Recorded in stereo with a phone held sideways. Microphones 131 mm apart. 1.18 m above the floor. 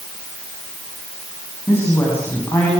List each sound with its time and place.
1.7 s a woman speaking: 20° left (ahead or behind), 9 m